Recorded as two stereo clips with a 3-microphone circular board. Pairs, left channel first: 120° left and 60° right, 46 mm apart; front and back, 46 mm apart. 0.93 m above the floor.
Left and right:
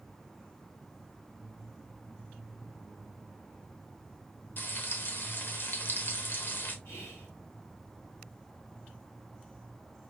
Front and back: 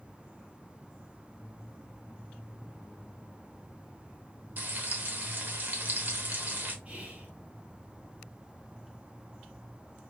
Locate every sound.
4.6 s frying: 145° left, 0.9 m
6.8 s whispering: 125° left, 1.8 m